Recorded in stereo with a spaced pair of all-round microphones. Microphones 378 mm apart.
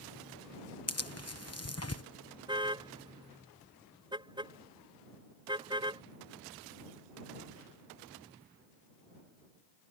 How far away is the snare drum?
No snare drum in this recording.